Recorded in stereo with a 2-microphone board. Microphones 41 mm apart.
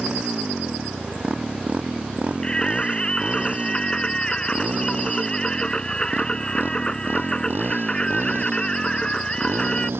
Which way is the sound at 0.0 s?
20° right (ahead or behind).